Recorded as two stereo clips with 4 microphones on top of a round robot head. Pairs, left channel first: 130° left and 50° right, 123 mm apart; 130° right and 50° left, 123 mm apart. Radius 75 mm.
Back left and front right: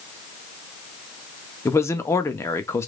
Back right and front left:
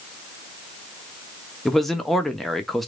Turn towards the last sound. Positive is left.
turn(degrees=145)